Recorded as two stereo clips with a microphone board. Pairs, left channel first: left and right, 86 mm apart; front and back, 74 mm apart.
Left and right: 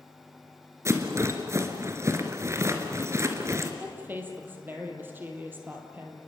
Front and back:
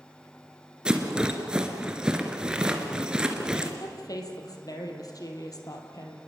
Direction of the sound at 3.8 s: 25° right.